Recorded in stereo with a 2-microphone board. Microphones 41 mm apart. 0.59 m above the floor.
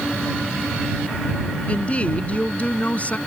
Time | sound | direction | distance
1.7 | a woman speaking | 30° left (ahead or behind) | ?